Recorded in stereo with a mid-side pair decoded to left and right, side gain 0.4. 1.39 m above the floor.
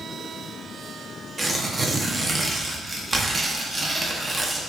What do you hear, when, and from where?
1.4 s tearing paper: 30° right, 0.5 m